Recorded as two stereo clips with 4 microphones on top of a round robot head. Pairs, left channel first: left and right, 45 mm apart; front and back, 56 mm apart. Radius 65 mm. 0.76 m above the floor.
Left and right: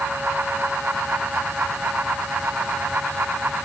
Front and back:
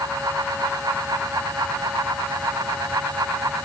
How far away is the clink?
No clink in this recording.